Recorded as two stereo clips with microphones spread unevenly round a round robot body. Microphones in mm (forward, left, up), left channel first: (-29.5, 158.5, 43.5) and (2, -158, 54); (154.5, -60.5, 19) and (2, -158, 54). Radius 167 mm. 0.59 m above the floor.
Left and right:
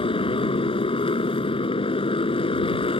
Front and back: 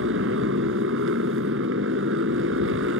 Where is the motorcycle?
170° left.